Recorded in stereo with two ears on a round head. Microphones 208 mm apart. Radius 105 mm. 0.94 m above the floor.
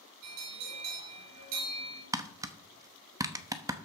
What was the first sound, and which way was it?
A bell, 80° right.